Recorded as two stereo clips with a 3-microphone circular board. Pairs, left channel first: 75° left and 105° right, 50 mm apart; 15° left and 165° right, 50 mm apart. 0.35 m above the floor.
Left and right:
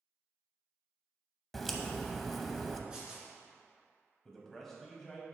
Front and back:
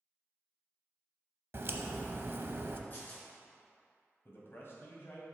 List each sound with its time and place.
1.5 s a crack: 160° left, 0.6 m
2.9 s tearing paper: 35° right, 2.5 m
4.2 s a man speaking: 10° right, 1.9 m